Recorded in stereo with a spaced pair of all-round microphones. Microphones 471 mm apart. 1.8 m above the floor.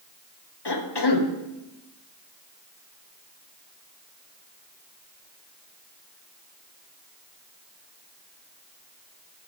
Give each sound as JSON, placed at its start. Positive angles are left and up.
{"t": 0.7, "sound": "a cough", "side_deg": 60, "distance_m": 1.0}